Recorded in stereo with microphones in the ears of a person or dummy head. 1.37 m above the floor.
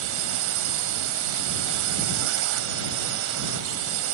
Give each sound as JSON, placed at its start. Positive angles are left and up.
{"t": 0.0, "sound": "a drone", "side_deg": -70}